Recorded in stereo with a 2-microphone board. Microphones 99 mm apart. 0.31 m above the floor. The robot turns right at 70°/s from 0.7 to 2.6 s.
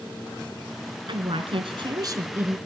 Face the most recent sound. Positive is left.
turn(degrees=-10)